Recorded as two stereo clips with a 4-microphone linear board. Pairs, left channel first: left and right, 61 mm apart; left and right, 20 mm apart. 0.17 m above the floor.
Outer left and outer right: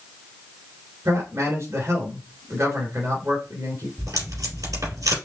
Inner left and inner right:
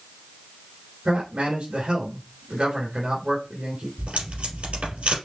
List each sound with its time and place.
1.1 s a man speaking: 50° right (ahead or behind), 2.5 m
4.0 s tape being pulled: 70° right (ahead or behind), 3.5 m